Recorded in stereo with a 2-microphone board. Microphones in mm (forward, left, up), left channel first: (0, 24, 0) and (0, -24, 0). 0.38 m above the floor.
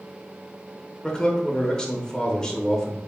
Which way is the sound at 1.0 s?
15° left (ahead or behind).